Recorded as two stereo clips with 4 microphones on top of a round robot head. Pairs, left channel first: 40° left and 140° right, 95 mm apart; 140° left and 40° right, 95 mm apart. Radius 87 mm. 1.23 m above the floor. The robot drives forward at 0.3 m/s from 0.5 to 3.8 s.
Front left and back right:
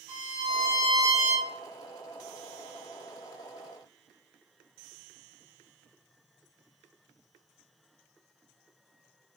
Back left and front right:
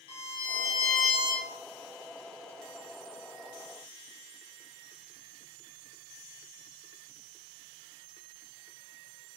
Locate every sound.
0.1 s a violin: 175° left, 1.0 m; by 1.5 s straight behind, 1.3 m